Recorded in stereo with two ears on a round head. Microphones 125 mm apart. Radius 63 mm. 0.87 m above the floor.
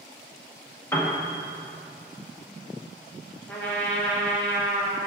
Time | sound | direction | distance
0.9 | a piano | 20° left (ahead or behind) | 1.3 m
3.5 | a trumpet | 10° left (ahead or behind) | 1.6 m